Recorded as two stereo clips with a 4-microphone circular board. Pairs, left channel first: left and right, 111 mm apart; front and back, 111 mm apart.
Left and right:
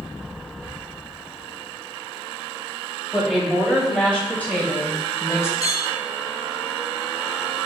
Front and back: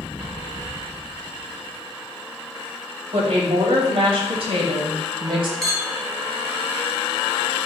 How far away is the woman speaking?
About 3 m.